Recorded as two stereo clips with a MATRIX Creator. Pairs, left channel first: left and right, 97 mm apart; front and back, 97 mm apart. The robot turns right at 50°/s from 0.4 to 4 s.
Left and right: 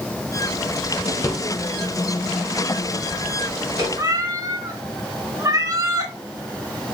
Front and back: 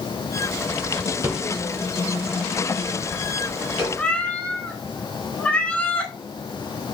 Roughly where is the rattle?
Behind left.